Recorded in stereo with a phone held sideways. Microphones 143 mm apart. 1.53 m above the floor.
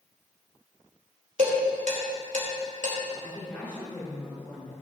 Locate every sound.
1.4 s dishes clattering: 70° right (ahead or behind), 3.5 m
3.2 s a woman speaking: 10° left (ahead or behind), 4.5 m